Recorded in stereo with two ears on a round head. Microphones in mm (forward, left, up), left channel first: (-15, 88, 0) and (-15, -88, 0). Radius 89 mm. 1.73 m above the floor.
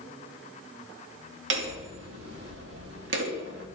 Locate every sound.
1.5 s hammering: 60° right (ahead or behind), 2.5 m